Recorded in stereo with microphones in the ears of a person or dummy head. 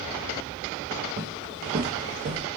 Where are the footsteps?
30° right (ahead or behind), 2.0 m; by 2.4 s 45° right (ahead or behind), 2 m.